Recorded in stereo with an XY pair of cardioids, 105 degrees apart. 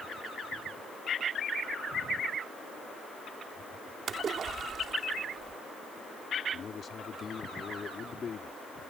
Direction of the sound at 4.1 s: 55° right.